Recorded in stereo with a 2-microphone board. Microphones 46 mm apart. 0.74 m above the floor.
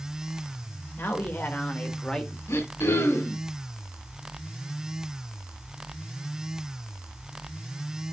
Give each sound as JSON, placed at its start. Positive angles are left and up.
{"t": 1.0, "sound": "a man speaking", "side_deg": 55, "distance_m": 2.5}
{"t": 2.5, "sound": "throat clearing", "side_deg": 75, "distance_m": 3.0}